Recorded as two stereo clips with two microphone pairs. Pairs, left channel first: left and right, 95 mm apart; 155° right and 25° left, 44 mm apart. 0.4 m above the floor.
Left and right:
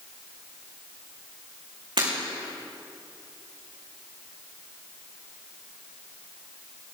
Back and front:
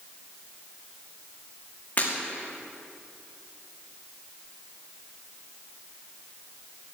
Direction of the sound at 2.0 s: 110° right.